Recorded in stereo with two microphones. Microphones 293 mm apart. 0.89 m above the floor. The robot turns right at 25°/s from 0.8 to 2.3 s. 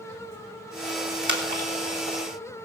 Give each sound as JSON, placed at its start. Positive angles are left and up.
{"t": 1.2, "sound": "a splash", "side_deg": -40, "distance_m": 3.5}